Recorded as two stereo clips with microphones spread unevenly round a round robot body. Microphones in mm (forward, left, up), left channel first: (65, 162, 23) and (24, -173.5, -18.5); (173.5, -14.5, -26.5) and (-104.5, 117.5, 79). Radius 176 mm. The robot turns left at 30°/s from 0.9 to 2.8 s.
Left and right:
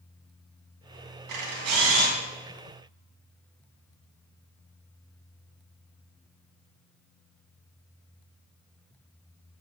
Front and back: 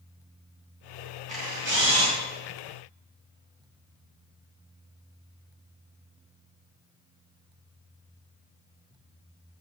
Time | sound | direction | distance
1.3 | a camera shutter | 130° right | 3 m